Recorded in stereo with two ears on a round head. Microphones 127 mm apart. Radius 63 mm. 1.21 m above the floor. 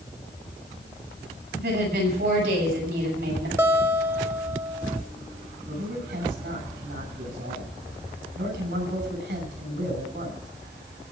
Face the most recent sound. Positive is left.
turn(degrees=-85)